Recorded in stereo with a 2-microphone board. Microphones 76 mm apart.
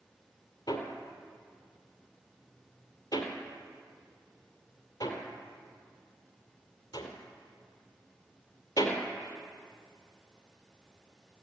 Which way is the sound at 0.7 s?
60° left (ahead or behind).